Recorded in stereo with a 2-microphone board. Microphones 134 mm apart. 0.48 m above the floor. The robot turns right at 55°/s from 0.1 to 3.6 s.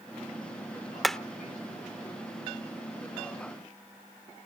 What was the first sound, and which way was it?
Hammering, centre (ahead or behind).